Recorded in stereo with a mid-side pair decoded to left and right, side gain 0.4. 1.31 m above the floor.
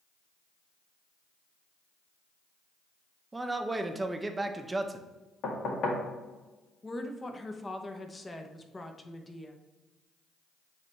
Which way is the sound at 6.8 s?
25° left.